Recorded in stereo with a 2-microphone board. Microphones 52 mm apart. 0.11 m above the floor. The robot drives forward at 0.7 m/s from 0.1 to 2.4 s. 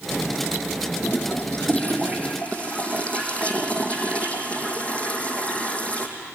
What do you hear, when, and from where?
1.0 s a toilet flushing: 40° left (ahead or behind), 1.6 m; by 6.1 s 25° left (ahead or behind), 2.5 m